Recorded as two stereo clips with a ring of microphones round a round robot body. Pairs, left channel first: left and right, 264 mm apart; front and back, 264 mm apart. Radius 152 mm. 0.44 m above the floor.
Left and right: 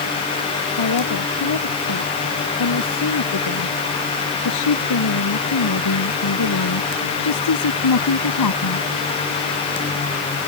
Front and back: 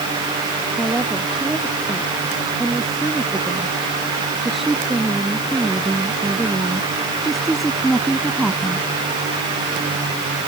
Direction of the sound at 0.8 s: 90° left.